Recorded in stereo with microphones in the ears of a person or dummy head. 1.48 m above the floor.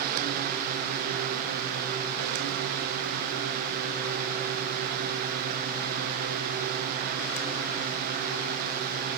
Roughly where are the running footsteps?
I don't hear running footsteps.